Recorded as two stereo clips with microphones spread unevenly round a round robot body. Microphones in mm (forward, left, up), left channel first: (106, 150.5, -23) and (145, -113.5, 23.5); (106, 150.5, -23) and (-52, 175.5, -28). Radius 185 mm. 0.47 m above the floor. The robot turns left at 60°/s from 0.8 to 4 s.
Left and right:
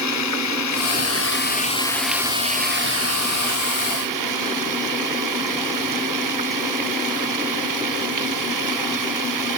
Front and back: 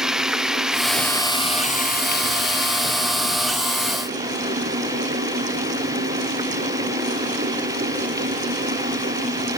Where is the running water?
85° left; by 9.6 s 110° right.